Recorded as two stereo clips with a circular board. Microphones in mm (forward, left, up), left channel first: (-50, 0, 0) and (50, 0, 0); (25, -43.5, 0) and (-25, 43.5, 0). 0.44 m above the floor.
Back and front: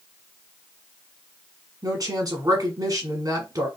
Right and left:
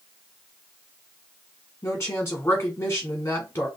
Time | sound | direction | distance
1.8 | a woman speaking | 10° right | 1.4 m